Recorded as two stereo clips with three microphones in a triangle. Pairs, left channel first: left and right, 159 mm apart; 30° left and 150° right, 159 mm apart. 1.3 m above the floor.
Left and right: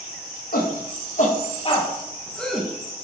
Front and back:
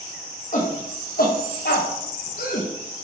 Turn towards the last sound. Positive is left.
turn(degrees=-5)